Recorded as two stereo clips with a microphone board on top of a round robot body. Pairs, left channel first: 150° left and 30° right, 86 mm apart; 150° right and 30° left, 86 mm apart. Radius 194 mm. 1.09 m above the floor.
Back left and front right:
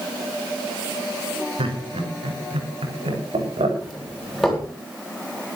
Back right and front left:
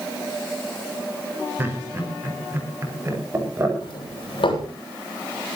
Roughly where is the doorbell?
Behind right.